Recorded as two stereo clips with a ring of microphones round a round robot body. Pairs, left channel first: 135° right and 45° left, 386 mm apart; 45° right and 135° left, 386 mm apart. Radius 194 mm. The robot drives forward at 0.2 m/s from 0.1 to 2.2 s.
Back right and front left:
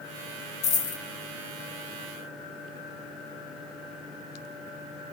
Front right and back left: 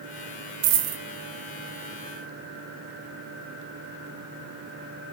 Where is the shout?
No shout in this recording.